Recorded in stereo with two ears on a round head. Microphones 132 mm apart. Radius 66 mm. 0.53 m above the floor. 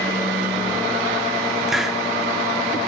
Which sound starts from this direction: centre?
A hiss, at 1.7 s.